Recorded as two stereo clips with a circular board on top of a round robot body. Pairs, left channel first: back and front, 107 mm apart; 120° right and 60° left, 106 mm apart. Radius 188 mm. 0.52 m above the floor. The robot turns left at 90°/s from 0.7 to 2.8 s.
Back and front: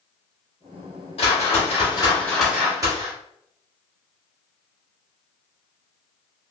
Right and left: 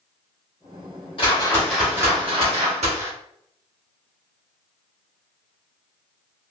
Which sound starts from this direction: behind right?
A whoosh, at 1.2 s.